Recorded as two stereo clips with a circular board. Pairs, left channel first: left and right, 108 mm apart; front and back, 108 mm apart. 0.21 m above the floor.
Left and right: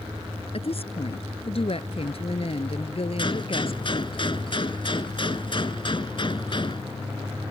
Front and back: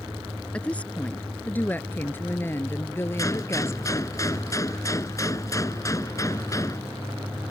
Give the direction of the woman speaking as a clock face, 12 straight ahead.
9 o'clock.